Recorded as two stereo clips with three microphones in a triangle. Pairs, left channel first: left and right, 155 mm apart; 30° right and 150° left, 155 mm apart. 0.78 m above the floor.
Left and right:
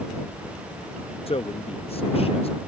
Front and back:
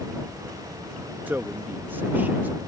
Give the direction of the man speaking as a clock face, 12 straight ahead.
9 o'clock.